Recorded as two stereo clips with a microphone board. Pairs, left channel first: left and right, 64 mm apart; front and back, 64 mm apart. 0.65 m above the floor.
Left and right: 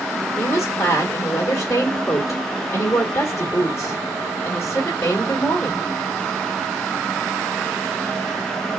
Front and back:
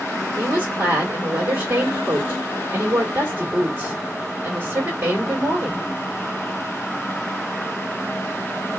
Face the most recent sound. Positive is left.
turn(degrees=130)